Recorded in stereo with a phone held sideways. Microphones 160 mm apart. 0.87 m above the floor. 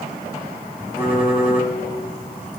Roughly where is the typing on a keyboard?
Centre.